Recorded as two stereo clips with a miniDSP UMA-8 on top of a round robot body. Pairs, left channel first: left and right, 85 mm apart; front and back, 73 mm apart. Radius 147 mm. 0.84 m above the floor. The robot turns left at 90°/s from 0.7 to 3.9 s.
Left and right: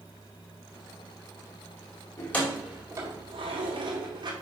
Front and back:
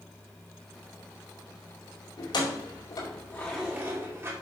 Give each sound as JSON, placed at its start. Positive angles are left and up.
{"t": 2.2, "sound": "keys jangling", "azimuth_deg": 35, "distance_m": 2.5}